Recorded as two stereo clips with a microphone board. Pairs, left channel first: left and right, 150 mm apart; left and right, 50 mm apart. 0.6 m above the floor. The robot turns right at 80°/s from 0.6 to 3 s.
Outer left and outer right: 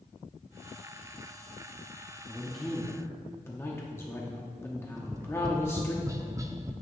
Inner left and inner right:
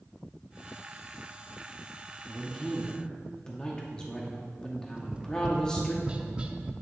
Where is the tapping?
20° right (ahead or behind), 0.6 m.